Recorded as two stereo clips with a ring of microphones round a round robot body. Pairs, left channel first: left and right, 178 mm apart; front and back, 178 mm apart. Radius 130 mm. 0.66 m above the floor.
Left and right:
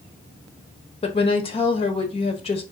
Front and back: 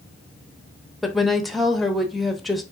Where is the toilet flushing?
I don't hear a toilet flushing.